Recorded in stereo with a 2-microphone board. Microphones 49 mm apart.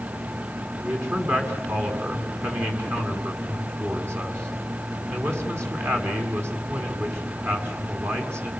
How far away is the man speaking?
About 6.5 m.